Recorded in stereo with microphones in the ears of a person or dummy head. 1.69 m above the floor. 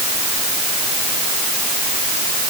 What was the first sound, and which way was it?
Only background noise.